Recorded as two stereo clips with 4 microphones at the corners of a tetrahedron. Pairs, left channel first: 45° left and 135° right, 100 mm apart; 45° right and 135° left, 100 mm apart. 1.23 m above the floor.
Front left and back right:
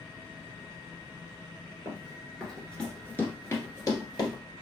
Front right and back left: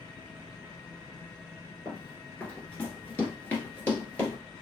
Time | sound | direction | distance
1.9 | running footsteps | 95° right | 1.2 m